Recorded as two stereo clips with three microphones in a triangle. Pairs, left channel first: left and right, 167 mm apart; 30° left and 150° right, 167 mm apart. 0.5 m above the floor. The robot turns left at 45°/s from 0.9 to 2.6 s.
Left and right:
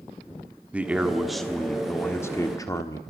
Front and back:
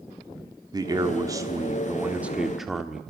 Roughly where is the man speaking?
Behind.